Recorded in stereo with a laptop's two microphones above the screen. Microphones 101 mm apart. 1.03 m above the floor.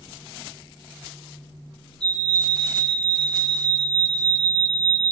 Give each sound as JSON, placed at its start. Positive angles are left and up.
{"t": 2.0, "sound": "a fire alarm", "side_deg": 5, "distance_m": 8.0}